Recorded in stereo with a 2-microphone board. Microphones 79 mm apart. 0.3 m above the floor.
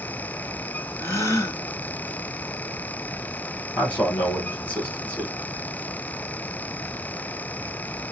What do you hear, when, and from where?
1.0 s a gasp: 40° left (ahead or behind), 1.9 m
3.8 s a man speaking: 20° left (ahead or behind), 1.5 m